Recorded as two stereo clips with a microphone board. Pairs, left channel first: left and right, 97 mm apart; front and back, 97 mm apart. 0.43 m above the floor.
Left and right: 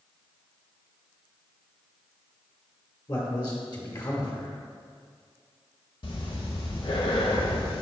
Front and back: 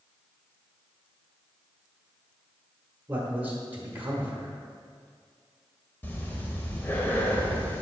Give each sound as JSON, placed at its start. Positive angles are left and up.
{"t": 3.1, "sound": "a man speaking", "azimuth_deg": 115, "distance_m": 1.2}
{"t": 6.0, "sound": "breathing", "azimuth_deg": 70, "distance_m": 0.8}